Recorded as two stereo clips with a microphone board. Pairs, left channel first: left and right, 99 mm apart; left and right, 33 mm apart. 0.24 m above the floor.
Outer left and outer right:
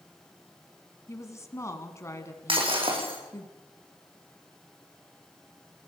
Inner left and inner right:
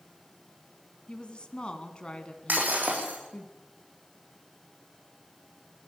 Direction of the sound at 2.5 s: 60° right (ahead or behind).